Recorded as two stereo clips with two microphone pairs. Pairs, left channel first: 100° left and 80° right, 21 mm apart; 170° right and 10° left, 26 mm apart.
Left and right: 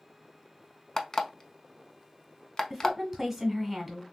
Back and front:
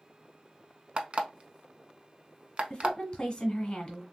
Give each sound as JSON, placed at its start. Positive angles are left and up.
{"t": 1.0, "sound": "an alarm clock", "azimuth_deg": 45, "distance_m": 0.6}
{"t": 2.7, "sound": "a woman speaking", "azimuth_deg": -140, "distance_m": 1.4}